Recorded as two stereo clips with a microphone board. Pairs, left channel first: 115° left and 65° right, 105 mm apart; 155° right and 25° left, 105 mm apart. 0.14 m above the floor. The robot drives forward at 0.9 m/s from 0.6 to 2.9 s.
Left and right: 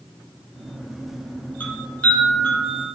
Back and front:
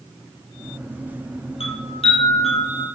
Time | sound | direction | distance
1.6 | a chime | 175° right | 3 m